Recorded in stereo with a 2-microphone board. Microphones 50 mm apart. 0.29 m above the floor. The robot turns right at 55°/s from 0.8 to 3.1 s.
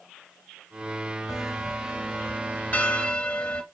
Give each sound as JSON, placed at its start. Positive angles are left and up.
{"t": 1.3, "sound": "a bell", "side_deg": 5, "distance_m": 1.1}